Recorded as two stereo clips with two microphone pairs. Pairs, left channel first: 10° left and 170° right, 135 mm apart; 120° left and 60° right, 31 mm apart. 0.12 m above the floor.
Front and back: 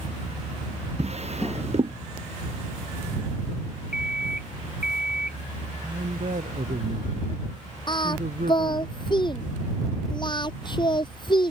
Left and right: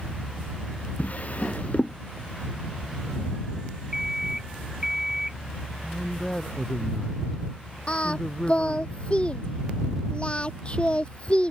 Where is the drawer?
155° left.